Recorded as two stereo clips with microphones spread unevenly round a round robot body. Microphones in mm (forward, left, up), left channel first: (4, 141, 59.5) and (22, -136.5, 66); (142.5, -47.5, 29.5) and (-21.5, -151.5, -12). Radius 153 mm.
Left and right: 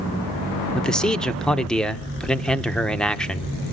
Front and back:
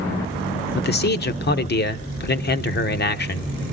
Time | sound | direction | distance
0.8 | a man speaking | 10° left | 1.2 m